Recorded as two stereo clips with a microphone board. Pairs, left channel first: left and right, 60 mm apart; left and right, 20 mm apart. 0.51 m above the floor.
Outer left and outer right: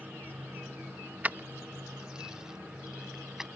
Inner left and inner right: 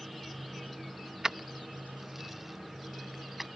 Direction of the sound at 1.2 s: 30° right (ahead or behind).